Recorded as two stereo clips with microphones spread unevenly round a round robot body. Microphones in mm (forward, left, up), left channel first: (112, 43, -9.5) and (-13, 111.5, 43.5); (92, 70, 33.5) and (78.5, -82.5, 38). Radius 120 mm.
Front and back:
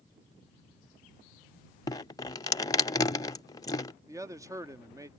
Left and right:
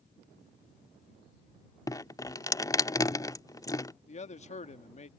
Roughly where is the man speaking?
Left.